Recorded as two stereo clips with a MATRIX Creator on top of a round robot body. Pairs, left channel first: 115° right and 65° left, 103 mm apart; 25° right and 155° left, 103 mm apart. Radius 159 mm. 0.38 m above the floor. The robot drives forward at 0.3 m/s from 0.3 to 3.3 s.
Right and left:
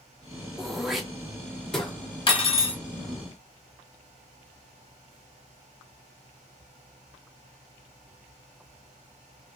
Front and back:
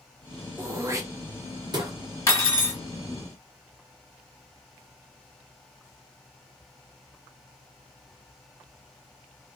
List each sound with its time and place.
0.6 s throat clearing: 150° left, 0.9 m; by 1.9 s 165° left, 1.1 m
2.3 s cutlery clinking: 80° right, 1.0 m; by 2.8 s 90° right, 1.0 m